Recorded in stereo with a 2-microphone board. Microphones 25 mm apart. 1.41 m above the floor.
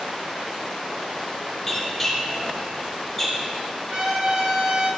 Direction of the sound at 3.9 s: 45° right (ahead or behind).